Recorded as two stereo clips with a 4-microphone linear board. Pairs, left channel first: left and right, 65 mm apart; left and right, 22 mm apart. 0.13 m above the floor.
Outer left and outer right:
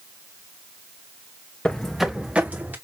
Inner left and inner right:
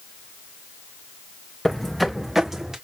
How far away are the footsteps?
About 0.9 m.